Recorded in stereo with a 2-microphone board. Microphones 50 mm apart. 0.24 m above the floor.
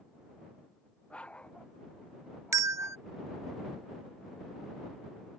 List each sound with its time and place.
1.1 s a dog barking: 25° left (ahead or behind); by 3.0 s 20° left (ahead or behind)
2.5 s a bell: 85° right